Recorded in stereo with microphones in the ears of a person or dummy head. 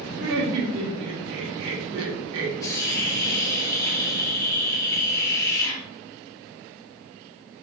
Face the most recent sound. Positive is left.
turn(degrees=15)  # may be behind; listen again after turning